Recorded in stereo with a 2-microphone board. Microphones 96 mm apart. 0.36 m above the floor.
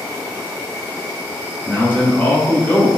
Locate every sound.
0.0 s an insect: 10° left (ahead or behind), 1.3 m
1.6 s a man speaking: 20° left (ahead or behind), 0.8 m